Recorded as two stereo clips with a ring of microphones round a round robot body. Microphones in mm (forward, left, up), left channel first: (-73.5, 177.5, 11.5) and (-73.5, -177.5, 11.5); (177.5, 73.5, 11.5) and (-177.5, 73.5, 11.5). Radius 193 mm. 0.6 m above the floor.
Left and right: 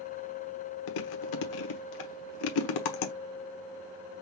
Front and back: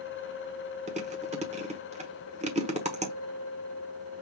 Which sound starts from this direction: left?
Chewing, at 0.9 s.